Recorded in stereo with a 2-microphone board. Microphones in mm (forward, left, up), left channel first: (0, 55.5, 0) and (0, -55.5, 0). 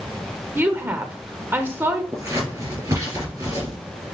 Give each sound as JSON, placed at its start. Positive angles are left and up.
{"t": 0.6, "sound": "a woman speaking", "side_deg": -20, "distance_m": 0.8}
{"t": 2.1, "sound": "scissors", "side_deg": -30, "distance_m": 2.5}